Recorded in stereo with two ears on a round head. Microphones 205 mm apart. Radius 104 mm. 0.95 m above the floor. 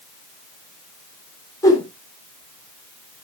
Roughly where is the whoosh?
Centre.